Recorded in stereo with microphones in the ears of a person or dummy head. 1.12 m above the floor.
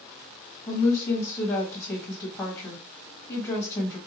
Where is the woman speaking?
20° left (ahead or behind), 1.4 m.